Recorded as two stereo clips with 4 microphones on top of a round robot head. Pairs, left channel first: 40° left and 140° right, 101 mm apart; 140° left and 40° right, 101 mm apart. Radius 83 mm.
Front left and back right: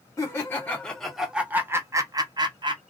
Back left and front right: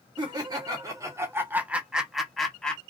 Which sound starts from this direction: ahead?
Laughter, at 0.2 s.